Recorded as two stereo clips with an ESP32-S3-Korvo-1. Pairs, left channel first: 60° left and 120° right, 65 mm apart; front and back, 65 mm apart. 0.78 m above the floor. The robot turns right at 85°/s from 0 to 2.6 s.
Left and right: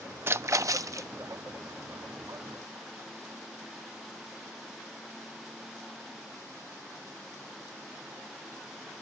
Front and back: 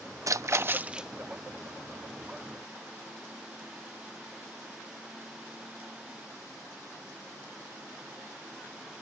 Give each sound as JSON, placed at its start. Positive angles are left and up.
{"t": 0.3, "sound": "a splash", "azimuth_deg": -165}